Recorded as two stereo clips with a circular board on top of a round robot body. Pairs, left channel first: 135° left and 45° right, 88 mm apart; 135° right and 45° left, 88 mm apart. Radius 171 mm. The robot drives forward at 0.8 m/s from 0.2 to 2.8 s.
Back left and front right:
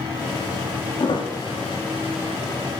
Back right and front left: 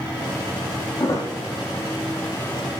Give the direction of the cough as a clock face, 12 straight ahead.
I don't hear a cough.